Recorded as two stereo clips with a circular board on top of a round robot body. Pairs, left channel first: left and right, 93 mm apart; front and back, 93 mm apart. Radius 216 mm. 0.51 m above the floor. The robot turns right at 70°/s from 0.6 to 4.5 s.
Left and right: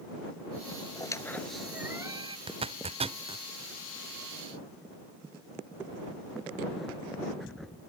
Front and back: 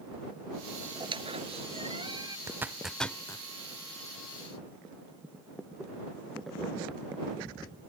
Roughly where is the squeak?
Behind left.